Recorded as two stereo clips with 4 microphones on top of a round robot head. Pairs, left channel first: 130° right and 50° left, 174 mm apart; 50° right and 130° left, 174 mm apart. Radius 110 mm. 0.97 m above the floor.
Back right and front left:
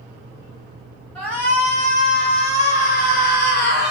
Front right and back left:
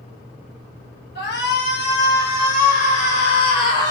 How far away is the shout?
About 1.3 m.